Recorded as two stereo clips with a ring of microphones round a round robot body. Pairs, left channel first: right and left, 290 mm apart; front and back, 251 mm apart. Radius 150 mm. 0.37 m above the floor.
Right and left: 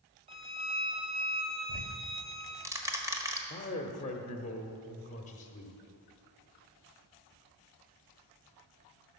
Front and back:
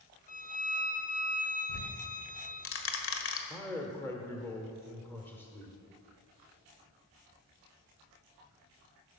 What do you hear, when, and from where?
0.3 s a violin: 30° left, 1.0 m
1.7 s ticking: 10° left, 1.5 m
3.5 s a man speaking: 70° right, 1.1 m